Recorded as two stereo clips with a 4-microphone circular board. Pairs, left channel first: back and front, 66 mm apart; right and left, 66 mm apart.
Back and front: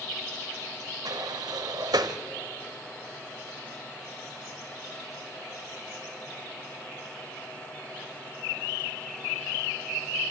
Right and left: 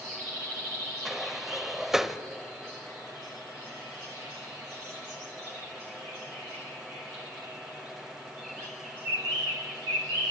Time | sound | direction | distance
1.1 | a sliding door | 5° left | 0.9 m